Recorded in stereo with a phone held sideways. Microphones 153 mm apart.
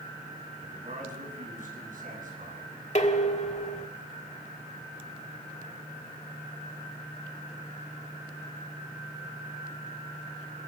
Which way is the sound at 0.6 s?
60° right (ahead or behind).